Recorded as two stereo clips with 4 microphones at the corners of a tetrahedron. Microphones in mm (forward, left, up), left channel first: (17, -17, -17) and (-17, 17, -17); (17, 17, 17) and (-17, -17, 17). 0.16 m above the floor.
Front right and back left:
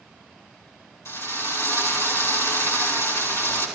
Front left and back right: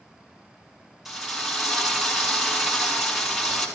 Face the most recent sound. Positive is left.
turn(degrees=-50)